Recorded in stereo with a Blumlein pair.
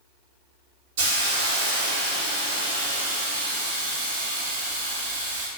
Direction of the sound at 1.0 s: 50° right.